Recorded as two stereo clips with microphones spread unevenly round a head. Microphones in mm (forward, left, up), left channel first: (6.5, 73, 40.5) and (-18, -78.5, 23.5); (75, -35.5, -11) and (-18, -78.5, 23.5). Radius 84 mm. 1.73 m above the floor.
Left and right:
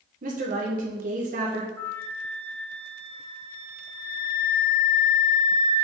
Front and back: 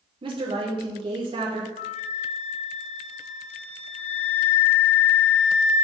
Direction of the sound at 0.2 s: 140° right.